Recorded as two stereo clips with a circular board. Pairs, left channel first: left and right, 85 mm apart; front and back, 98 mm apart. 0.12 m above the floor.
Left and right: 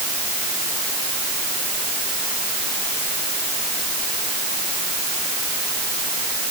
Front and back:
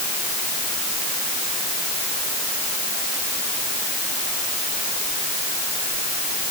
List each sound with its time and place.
Only background noise.